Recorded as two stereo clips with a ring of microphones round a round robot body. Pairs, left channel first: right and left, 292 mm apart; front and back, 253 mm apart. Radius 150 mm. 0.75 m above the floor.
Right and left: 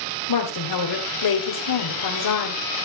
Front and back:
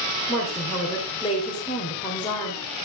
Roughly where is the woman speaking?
Right.